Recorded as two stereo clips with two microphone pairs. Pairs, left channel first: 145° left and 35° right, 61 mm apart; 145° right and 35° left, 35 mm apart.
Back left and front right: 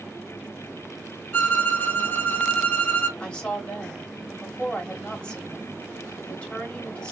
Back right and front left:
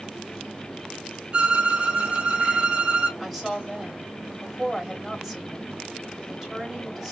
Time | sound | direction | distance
1.3 | a violin | 85° left | 0.9 m
3.2 | a woman speaking | 105° left | 1.1 m